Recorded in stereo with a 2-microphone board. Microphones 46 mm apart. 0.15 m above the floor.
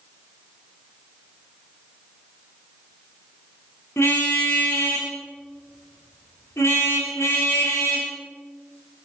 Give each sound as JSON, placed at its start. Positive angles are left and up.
{"t": 4.0, "sound": "a car horn", "side_deg": 70, "distance_m": 6.5}